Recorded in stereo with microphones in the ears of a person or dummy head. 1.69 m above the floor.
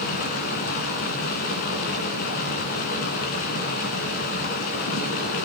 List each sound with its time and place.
0.0 s running water: 35° left (ahead or behind), 2 m